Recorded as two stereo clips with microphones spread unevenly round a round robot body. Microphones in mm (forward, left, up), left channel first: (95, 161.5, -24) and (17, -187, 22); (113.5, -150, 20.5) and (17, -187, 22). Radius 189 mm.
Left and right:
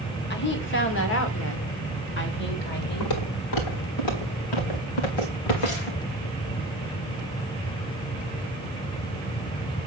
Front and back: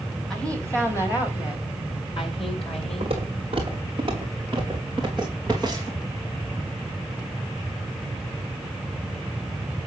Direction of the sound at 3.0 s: 125° left.